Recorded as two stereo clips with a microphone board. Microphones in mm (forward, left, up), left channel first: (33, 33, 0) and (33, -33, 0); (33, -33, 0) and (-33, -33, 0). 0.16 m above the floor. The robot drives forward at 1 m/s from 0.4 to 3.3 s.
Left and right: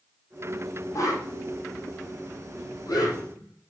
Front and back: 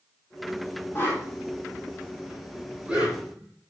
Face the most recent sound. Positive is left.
turn(degrees=120)